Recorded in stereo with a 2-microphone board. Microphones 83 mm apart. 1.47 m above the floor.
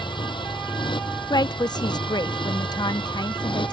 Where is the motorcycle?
75° left (ahead or behind); by 3.7 s 85° left.